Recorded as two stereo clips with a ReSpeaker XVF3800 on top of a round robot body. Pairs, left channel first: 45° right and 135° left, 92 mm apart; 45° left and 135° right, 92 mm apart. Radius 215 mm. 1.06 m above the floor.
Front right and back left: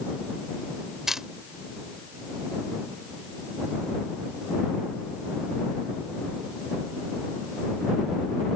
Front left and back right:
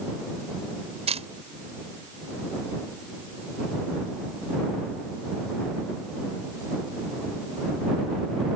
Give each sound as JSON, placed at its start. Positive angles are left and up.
{"t": 1.1, "sound": "a camera shutter", "azimuth_deg": -140}